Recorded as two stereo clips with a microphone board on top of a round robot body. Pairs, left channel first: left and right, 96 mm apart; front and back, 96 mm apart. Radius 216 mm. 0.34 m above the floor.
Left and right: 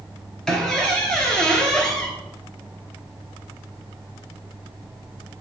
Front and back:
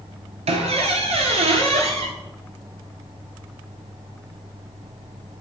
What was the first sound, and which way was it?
A squeak, 175° left.